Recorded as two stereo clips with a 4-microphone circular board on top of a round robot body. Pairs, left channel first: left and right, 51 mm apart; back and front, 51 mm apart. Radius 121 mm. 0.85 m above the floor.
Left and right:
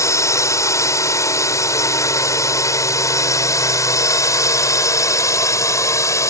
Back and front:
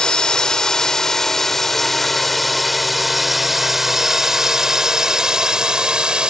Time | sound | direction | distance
0.0 | a drone | 105° left | ?